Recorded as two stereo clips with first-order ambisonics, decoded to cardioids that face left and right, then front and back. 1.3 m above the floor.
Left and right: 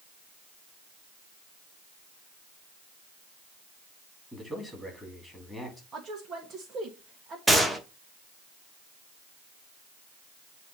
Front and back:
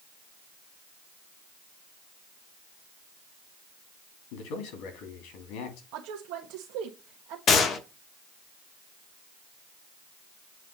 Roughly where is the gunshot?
Ahead.